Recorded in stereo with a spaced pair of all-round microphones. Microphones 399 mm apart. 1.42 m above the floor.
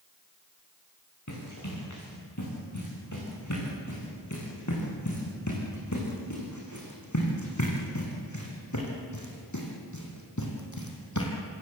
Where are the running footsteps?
40° left (ahead or behind), 9 m.